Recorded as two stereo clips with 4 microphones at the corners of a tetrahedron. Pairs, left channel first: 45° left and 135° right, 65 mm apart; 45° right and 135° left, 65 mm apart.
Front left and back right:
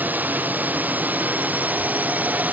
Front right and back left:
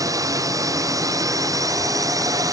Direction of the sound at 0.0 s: 160° left.